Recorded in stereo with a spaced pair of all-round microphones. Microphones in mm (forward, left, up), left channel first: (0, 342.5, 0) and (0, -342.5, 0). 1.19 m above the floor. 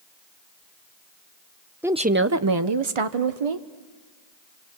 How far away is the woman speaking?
About 0.7 m.